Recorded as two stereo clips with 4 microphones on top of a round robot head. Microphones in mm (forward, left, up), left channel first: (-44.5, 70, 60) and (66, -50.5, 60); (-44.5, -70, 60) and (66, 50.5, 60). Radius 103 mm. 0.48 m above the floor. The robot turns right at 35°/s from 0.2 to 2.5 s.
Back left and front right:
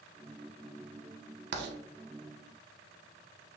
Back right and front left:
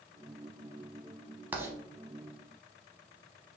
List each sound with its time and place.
1.5 s writing: 30° right, 0.6 m; by 1.8 s 20° right, 0.6 m